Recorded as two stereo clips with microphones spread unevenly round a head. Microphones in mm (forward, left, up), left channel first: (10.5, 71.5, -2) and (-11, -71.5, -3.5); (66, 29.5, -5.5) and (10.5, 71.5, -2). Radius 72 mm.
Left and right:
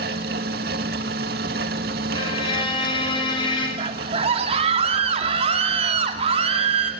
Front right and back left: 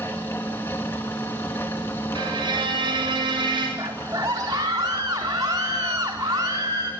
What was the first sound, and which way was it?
A fan, 110° right.